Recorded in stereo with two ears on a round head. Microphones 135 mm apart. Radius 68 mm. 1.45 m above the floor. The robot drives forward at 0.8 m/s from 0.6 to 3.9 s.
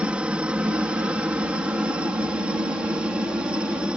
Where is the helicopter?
5° right (ahead or behind).